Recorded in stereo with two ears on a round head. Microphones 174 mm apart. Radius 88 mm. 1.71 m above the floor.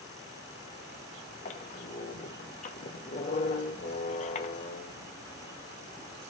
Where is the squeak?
35° left (ahead or behind), 0.9 m.